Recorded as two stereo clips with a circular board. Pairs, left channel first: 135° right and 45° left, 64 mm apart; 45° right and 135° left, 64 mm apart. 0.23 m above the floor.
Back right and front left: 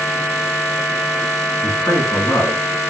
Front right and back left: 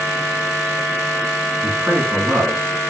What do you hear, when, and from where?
1.6 s a man speaking: 175° right, 2.5 m; by 2.9 s 150° right, 2.5 m